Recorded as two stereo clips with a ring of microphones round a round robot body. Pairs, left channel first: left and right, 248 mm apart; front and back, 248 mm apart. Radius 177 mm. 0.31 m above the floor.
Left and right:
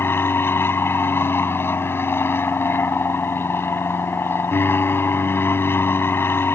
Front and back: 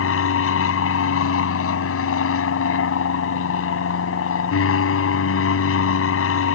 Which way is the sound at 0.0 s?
10° left.